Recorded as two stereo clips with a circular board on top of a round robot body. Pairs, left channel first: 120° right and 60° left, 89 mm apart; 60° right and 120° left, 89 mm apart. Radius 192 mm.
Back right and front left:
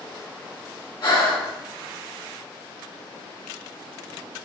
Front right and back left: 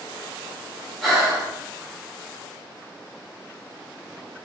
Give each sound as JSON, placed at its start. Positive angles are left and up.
{"t": 1.0, "sound": "breathing", "azimuth_deg": -150, "distance_m": 4.0}